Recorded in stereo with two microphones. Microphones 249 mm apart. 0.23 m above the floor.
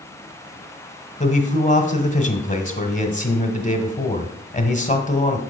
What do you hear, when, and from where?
1.2 s a man speaking: 30° left (ahead or behind), 1.2 m